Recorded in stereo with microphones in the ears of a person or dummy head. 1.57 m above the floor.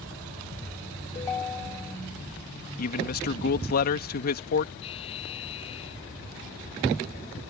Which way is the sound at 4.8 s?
30° left (ahead or behind).